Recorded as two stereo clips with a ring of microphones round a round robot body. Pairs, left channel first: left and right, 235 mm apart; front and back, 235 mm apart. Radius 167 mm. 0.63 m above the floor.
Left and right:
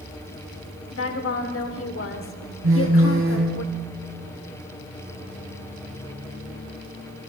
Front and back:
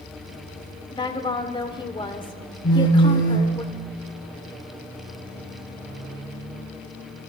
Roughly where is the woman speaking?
Left.